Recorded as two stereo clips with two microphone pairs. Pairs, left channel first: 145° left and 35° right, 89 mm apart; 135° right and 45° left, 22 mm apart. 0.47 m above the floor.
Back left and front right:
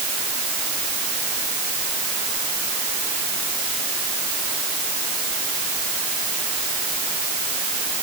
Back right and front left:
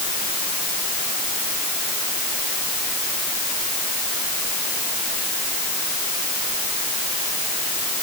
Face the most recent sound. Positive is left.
No sound to turn to.